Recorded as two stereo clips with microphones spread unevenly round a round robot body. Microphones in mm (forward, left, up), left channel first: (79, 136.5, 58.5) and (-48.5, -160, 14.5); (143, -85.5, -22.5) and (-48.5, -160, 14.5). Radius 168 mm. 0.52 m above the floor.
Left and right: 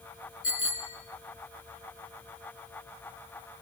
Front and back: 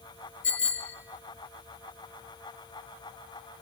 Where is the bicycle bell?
15° left, 5.5 m.